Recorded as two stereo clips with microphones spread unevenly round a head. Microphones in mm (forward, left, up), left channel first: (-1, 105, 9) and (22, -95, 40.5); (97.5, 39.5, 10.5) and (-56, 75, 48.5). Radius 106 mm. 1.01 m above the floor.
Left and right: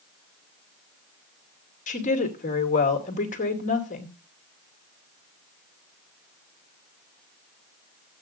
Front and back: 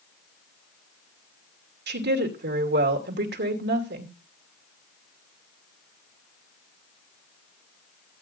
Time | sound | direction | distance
1.9 | a woman speaking | 150° left | 2.5 m